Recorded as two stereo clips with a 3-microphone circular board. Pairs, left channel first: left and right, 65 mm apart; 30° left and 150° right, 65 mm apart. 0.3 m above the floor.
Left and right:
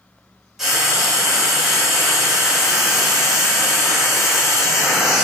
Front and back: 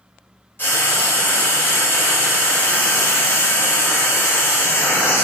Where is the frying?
5° right, 1.9 m.